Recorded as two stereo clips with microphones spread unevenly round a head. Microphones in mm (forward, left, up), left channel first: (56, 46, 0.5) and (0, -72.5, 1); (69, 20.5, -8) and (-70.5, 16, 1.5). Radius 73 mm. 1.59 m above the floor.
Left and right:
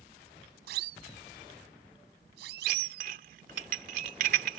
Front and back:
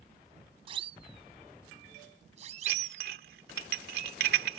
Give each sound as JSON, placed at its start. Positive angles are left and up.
{"t": 0.7, "sound": "a siren", "azimuth_deg": -120}
{"t": 2.7, "sound": "dishes clattering", "azimuth_deg": -155}